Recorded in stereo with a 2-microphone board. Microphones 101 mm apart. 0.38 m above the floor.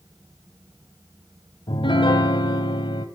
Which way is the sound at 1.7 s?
55° left (ahead or behind).